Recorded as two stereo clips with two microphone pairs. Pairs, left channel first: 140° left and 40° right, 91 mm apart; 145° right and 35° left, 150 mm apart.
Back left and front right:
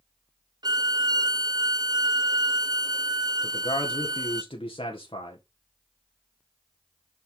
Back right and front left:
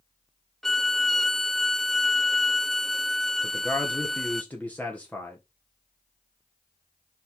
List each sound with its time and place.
0.6 s a violin: 55° right, 0.5 m
3.4 s a man speaking: 135° left, 1.6 m